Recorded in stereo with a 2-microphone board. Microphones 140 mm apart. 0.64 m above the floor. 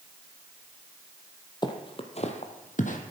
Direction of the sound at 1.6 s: 30° left (ahead or behind).